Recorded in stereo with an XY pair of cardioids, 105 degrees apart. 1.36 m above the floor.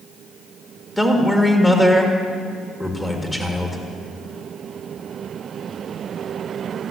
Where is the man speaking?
5° left, 2.0 m.